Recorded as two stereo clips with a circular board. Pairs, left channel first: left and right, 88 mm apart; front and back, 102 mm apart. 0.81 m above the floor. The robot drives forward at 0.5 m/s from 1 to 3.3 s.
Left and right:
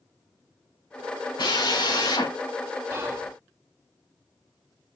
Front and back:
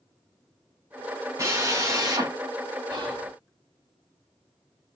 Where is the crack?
I don't hear a crack.